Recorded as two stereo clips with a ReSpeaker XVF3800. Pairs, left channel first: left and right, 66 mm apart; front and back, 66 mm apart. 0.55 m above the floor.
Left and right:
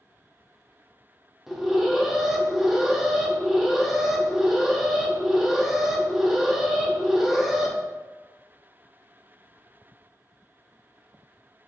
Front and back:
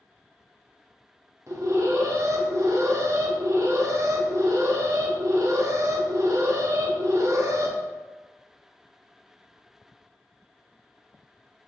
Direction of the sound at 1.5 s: 175° right.